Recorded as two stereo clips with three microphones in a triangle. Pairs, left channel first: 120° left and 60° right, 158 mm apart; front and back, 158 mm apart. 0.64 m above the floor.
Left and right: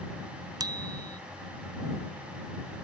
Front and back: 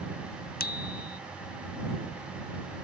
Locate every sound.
0.6 s a bicycle bell: 5° left